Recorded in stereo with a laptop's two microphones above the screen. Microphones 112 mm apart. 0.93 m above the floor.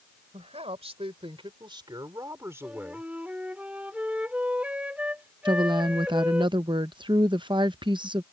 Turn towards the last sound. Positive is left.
turn(degrees=-45)  # may be behind; listen again after turning